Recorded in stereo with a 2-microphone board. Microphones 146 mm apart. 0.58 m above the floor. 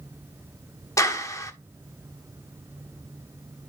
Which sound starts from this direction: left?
A clap, at 1.0 s.